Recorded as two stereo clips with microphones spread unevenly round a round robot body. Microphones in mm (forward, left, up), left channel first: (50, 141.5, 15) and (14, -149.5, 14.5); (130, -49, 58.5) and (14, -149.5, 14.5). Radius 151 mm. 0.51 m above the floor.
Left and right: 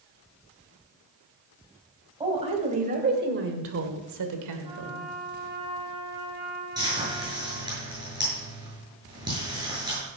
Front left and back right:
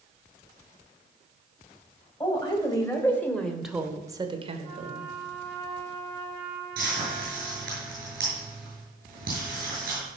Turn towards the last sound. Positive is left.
turn(degrees=-175)